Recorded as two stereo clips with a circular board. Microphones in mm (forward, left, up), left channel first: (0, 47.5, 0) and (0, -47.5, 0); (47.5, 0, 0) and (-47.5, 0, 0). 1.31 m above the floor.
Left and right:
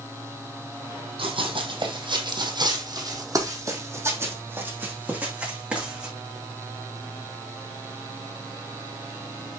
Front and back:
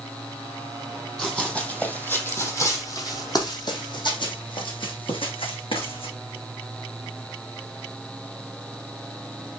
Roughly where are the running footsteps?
Right.